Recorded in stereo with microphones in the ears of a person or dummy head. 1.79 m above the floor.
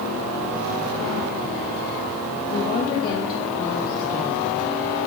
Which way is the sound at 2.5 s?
50° left (ahead or behind).